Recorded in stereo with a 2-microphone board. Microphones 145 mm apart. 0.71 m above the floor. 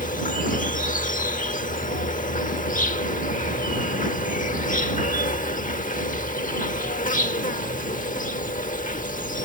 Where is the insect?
65° left (ahead or behind).